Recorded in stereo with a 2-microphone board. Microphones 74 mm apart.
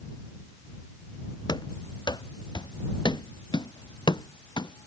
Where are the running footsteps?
70° left (ahead or behind).